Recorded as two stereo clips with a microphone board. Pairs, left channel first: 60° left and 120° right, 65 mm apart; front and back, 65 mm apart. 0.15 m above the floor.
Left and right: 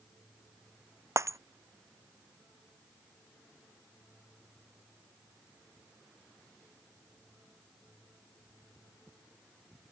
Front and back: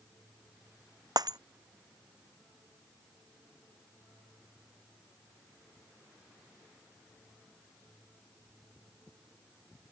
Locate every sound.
1.2 s breaking glass: 160° right